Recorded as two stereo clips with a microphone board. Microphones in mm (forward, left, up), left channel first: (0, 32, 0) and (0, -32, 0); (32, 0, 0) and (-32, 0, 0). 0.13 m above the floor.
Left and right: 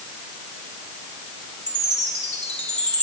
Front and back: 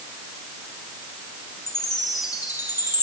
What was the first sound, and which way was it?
A chime, 20° left.